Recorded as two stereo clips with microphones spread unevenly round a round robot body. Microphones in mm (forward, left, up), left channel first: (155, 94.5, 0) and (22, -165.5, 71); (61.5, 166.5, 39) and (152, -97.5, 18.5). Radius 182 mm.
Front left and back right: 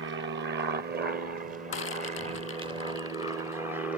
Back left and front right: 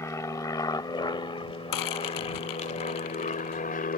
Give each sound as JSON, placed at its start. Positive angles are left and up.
{"t": 0.0, "sound": "an aircraft", "azimuth_deg": -170}
{"t": 1.7, "sound": "a rattle", "azimuth_deg": 115}